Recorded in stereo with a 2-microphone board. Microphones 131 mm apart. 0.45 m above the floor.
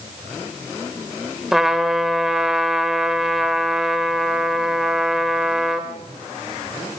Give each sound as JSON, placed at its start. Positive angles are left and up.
{"t": 1.5, "sound": "a trumpet", "side_deg": -5, "distance_m": 2.0}